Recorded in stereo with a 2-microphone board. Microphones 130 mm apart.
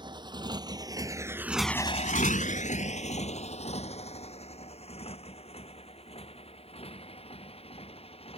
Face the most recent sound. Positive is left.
turn(degrees=50)  # may be behind; listen again after turning